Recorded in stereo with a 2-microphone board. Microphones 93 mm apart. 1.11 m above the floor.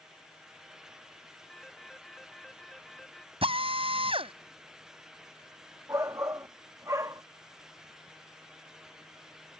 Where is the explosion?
No explosion in this recording.